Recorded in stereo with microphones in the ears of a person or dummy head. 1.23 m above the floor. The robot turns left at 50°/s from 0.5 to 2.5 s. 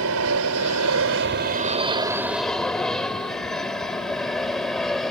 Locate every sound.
0.0 s an aircraft: 75° right (ahead or behind); by 5.1 s 5° left (ahead or behind)